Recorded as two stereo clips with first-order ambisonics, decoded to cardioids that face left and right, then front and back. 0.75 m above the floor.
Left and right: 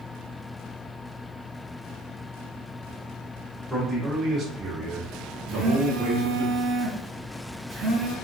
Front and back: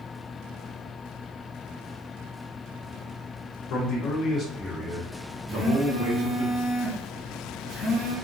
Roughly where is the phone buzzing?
Ahead right.